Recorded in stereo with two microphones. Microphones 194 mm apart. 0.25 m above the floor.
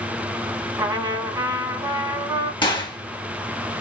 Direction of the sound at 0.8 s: 20° right (ahead or behind).